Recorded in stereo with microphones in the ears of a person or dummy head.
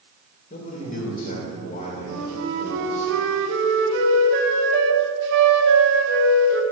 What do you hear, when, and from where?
0.5 s a man speaking: 50° left (ahead or behind), 2 m
2.1 s a flute: 70° right (ahead or behind), 0.8 m